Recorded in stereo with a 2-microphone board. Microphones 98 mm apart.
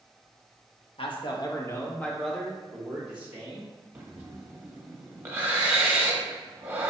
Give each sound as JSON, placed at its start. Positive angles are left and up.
{"t": 1.0, "sound": "a man speaking", "side_deg": 65, "distance_m": 0.9}
{"t": 4.0, "sound": "breathing", "side_deg": -20, "distance_m": 0.9}